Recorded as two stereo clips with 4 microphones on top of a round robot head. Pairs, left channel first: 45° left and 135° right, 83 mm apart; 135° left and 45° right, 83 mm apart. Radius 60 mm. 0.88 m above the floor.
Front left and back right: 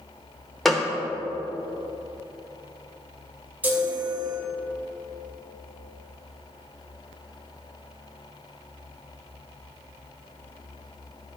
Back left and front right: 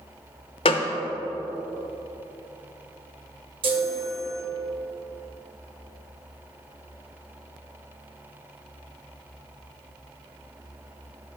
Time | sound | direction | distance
0.7 | a gunshot | 130° left | 0.7 m
3.6 | a chime | 65° right | 2.0 m